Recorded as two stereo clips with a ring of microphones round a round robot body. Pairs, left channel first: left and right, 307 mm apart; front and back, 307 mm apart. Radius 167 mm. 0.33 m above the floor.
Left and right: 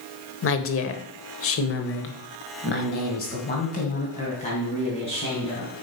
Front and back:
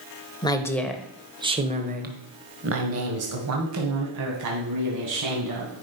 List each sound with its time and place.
0.4 s a woman speaking: 70° left, 1.2 m; by 5.7 s 165° left, 3 m